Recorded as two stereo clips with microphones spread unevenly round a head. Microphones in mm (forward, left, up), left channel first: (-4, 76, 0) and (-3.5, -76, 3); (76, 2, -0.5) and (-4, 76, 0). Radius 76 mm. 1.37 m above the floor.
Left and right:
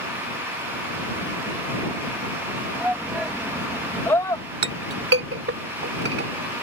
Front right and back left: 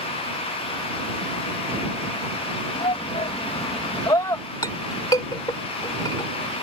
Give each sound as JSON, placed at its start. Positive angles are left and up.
{"t": 2.8, "sound": "a shout", "azimuth_deg": -10}
{"t": 4.6, "sound": "a clink", "azimuth_deg": -110}